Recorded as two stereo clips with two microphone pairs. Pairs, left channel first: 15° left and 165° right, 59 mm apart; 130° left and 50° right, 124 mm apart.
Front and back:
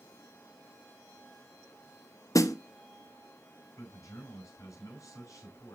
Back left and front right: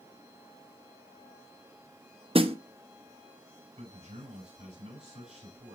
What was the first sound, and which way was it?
A snare drum, 10° right.